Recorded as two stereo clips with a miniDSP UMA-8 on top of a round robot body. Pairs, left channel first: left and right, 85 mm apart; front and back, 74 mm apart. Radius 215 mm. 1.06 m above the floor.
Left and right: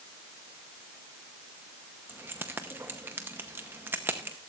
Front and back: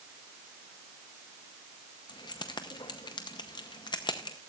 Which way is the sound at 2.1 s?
25° right.